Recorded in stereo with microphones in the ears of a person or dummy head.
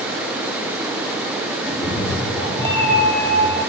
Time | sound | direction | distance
1.6 | a cat meowing | 5° left (ahead or behind) | 7 m